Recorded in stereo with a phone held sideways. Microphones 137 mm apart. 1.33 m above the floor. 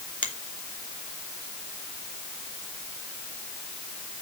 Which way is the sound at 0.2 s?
75° left (ahead or behind).